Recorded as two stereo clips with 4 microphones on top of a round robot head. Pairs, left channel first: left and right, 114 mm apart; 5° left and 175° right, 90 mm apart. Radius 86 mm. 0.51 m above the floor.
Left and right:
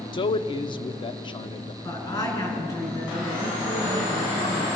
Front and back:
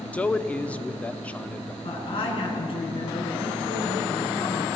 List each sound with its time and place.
0.1 s a man speaking: 75° left, 0.9 m
1.8 s a woman speaking: 30° left, 6.5 m